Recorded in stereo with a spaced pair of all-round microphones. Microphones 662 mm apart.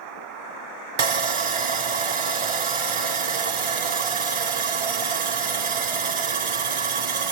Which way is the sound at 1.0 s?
55° right (ahead or behind).